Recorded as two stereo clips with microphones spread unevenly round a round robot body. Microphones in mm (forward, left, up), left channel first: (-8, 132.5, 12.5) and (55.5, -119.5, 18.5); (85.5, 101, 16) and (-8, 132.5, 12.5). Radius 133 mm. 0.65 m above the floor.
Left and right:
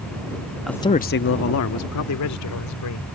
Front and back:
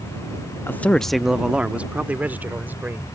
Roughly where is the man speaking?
Ahead.